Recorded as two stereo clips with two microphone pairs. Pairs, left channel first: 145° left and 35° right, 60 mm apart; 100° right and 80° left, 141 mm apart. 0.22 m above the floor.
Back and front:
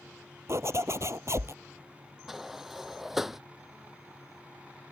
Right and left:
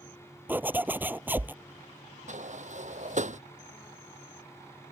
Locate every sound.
0.5 s a zipper: 5° left
2.3 s a sliding door: 50° left